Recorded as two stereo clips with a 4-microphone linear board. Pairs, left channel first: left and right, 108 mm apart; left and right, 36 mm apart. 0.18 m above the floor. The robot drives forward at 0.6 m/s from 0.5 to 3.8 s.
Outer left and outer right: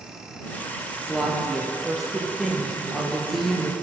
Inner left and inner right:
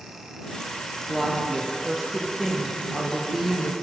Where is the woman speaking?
Centre (ahead or behind), 4.5 m.